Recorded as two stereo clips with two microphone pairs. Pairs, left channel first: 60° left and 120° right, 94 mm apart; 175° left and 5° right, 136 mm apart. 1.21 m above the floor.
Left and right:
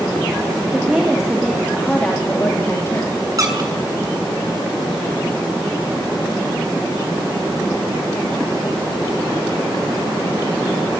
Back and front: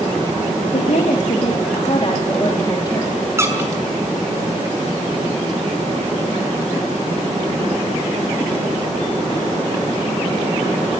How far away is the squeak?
About 2.5 m.